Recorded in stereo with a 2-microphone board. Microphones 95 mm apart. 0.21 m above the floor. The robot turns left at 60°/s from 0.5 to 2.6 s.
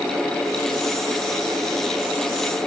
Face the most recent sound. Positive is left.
No sound to turn to.